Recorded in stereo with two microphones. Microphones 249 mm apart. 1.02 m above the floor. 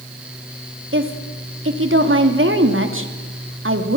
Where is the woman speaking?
55° right (ahead or behind), 2.5 m.